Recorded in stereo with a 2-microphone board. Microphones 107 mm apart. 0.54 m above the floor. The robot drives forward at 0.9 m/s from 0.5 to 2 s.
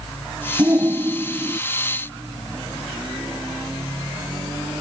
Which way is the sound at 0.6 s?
30° right (ahead or behind).